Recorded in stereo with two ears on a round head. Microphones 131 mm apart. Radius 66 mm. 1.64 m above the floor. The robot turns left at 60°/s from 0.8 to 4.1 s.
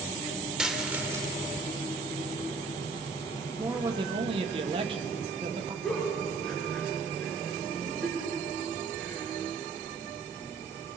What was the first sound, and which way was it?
A dropped coin, 5° right (ahead or behind).